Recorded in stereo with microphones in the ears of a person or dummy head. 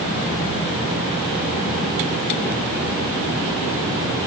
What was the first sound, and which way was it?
Only background noise.